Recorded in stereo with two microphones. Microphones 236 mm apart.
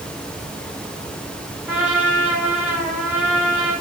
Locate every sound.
1.7 s a trumpet: 5° right (ahead or behind), 4 m